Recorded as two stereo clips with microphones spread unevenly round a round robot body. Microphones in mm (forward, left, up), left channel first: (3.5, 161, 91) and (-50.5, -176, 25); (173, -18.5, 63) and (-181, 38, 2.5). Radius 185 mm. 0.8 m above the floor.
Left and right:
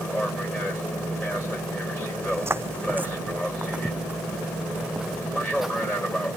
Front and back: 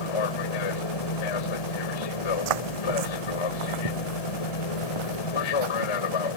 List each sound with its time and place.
0.0 s an aircraft: 10° right
2.2 s footsteps: 175° left; by 6.3 s 170° left